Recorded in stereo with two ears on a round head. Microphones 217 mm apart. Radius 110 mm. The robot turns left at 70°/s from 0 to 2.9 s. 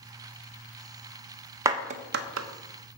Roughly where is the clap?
Centre.